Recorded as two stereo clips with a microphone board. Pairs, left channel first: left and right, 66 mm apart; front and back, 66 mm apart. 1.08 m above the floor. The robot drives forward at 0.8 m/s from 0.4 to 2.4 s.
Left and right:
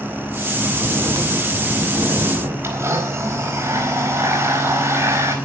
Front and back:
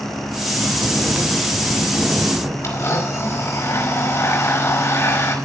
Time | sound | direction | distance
0.5 | snoring | 95° right | 4.5 m
2.6 | a blender | 45° right | 4.5 m